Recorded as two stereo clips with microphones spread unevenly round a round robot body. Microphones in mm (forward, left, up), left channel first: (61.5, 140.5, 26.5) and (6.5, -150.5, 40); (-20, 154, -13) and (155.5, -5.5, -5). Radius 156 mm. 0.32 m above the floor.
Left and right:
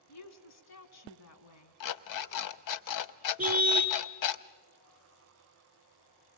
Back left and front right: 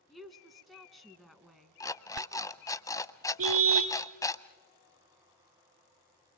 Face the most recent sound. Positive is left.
turn(degrees=-15)